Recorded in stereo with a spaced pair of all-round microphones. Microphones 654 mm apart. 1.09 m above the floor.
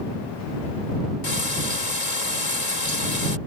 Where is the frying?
75° left (ahead or behind).